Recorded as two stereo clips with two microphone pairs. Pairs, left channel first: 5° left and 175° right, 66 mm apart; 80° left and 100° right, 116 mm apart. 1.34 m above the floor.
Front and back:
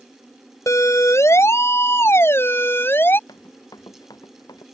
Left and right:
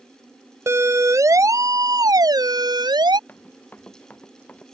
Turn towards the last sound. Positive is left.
turn(degrees=0)